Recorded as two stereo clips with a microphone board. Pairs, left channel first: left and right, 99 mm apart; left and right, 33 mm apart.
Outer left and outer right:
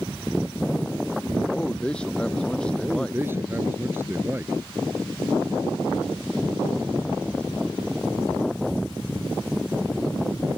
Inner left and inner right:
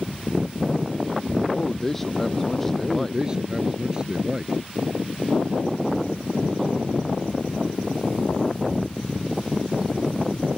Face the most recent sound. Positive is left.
turn(degrees=-20)  # may be behind; listen again after turning